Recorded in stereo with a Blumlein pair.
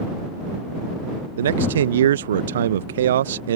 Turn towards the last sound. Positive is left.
turn(degrees=-60)